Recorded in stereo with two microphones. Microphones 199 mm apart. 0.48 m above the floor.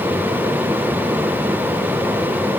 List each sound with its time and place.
Only background noise.